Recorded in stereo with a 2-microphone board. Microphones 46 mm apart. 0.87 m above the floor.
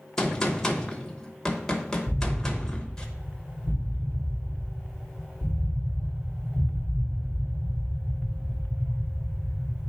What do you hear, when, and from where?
0.2 s a gunshot: 10° left (ahead or behind), 0.8 m
2.1 s an explosion: 55° right (ahead or behind), 2.5 m